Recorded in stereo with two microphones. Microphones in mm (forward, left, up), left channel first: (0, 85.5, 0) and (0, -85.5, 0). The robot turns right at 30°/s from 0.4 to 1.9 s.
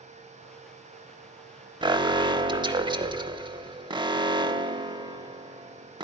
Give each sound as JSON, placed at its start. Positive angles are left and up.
{"t": 1.8, "sound": "an alarm", "side_deg": -25, "distance_m": 0.7}